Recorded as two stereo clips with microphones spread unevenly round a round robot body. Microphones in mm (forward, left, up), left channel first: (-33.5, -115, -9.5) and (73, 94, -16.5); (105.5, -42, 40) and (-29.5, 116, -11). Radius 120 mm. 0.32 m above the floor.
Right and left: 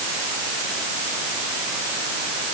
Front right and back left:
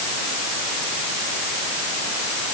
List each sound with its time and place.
Only background noise.